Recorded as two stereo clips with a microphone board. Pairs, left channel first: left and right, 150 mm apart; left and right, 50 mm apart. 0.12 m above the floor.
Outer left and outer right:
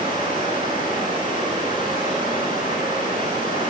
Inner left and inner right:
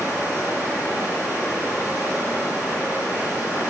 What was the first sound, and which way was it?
Running water, 30° right (ahead or behind).